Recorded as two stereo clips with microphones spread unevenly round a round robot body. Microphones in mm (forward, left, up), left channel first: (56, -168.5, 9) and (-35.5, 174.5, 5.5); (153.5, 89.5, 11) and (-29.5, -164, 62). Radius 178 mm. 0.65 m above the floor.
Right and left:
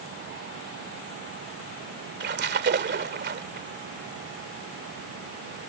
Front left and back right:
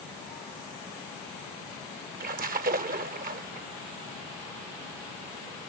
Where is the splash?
165° left.